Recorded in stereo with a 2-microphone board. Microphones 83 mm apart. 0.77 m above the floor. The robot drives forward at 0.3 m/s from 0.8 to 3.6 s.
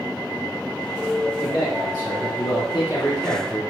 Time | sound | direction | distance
1.4 | a man speaking | 55° left (ahead or behind) | 1.7 m